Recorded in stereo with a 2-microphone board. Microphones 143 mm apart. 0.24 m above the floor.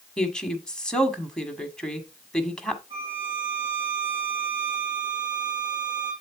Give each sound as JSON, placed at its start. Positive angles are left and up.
{"t": 0.2, "sound": "a woman speaking", "side_deg": 5, "distance_m": 1.4}
{"t": 2.9, "sound": "a violin", "side_deg": -25, "distance_m": 6.0}